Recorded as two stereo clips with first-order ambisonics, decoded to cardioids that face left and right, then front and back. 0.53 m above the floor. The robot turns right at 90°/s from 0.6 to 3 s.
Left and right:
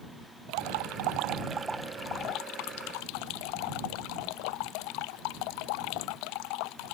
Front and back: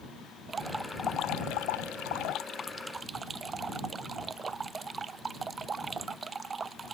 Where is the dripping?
110° right; by 7.0 s 105° left.